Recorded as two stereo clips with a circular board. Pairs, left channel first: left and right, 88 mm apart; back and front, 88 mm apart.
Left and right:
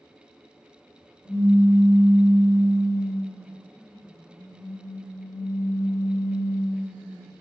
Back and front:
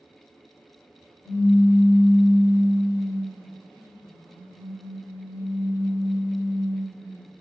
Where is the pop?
135° right, 1.9 m.